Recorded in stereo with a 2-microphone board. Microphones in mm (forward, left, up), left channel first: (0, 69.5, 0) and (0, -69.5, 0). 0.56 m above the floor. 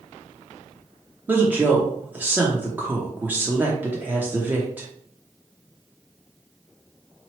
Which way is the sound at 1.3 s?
15° right (ahead or behind).